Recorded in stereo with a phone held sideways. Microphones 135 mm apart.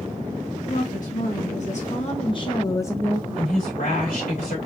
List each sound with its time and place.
0.7 s a woman speaking: 75° left (ahead or behind), 1.8 m; by 3.6 s centre (ahead or behind), 1.4 m
3.4 s a woman speaking: 85° left, 3 m